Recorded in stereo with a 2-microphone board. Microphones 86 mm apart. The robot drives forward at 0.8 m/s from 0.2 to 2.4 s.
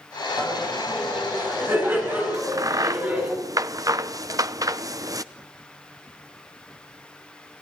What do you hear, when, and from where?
0.4 s laughter: 30° right (ahead or behind), 9.5 m; by 3.3 s 25° right (ahead or behind), 11 m
2.3 s a crack: 40° right (ahead or behind), 0.8 m; by 5.2 s 45° right (ahead or behind), 0.7 m